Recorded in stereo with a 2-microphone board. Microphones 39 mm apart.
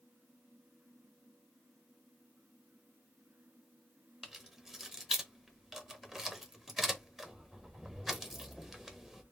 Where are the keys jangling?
5° right (ahead or behind), 0.9 m.